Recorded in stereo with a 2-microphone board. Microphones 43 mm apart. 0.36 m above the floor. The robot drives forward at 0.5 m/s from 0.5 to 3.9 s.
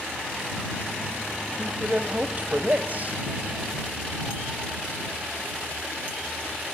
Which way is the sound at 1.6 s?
30° right (ahead or behind).